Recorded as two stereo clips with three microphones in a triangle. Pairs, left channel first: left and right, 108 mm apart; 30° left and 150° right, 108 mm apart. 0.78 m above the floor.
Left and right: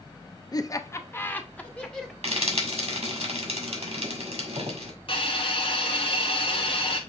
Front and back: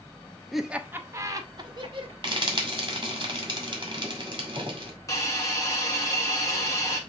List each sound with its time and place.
0.5 s laughter: 120° left, 0.5 m; by 2.1 s 175° left, 1.1 m
2.2 s frying: 105° right, 1.6 m
5.1 s a hiss: 80° left, 1.3 m